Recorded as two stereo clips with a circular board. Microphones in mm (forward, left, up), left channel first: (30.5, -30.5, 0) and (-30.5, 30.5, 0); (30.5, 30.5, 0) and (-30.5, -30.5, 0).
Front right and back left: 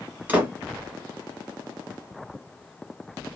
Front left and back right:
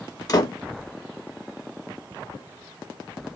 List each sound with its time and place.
0.3 s a door slam: 70° left, 1.2 m